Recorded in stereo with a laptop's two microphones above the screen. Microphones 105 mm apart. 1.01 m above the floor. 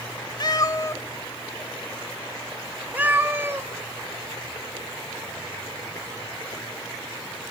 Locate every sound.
0.4 s a cat meowing: 45° left (ahead or behind), 1.2 m; by 3.7 s 25° right (ahead or behind), 2 m